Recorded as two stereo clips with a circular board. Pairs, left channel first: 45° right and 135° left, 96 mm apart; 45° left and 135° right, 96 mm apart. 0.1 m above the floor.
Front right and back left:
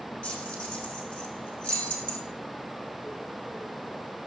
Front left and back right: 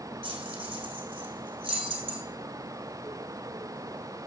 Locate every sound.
0.2 s keys jangling: 120° right, 3.5 m